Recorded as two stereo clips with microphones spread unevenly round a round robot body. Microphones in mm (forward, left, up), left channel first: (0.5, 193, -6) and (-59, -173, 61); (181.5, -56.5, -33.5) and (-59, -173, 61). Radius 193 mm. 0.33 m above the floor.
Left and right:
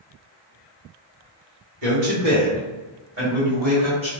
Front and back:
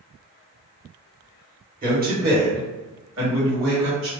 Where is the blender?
No blender in this recording.